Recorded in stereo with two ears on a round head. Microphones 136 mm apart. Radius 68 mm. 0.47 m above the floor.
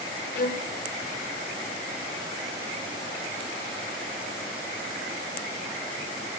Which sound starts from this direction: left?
A violin, at 0.3 s.